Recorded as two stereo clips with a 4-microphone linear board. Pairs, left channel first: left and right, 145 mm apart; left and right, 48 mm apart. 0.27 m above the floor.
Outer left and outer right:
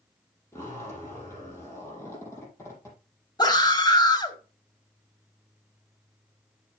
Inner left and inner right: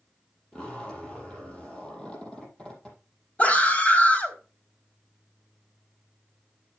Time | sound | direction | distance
0.5 | a zipper | 20° left (ahead or behind) | 5.5 m
3.4 | a scream | 30° left (ahead or behind) | 1.9 m